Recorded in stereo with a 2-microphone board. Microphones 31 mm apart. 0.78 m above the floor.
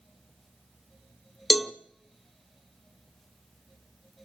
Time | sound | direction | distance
1.5 | a cowbell | 5° right (ahead or behind) | 0.7 m